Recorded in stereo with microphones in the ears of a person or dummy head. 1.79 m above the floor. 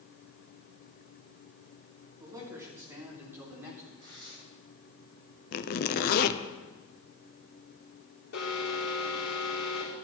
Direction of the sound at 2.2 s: 20° right (ahead or behind).